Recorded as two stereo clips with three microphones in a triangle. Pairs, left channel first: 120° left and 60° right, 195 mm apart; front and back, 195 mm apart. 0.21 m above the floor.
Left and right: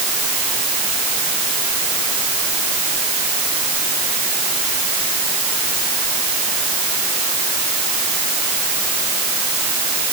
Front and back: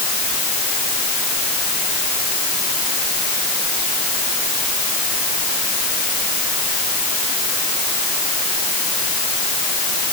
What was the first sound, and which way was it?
Only background noise.